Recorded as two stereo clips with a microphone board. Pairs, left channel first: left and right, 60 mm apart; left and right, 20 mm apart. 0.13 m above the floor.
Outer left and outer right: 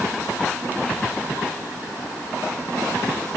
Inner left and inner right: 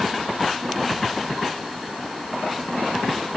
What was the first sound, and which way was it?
Only background noise.